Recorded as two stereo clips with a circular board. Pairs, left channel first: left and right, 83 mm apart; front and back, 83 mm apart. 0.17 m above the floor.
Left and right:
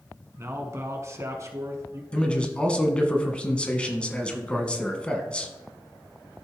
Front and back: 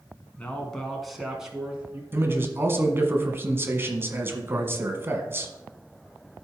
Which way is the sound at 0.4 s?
65° right.